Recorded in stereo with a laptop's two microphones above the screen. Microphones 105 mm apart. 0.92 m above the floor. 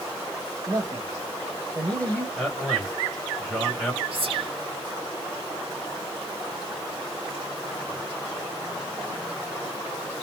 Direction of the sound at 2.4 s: 5° right (ahead or behind).